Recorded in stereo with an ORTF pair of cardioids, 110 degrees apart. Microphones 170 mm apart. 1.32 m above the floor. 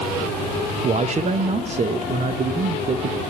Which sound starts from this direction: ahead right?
A man speaking, at 0.8 s.